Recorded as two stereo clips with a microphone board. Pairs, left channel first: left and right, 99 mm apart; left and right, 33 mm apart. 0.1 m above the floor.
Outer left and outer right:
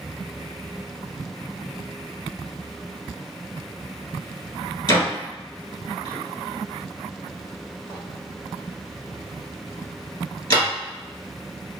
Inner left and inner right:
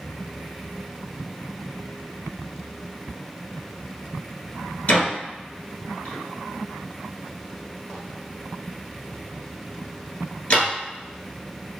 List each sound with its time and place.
4.9 s a door slam: 45° left (ahead or behind), 1.7 m